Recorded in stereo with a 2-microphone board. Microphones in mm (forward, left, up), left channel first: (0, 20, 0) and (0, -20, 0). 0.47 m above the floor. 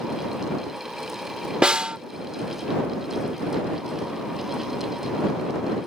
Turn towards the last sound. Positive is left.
turn(degrees=-25)  # may be behind; listen again after turning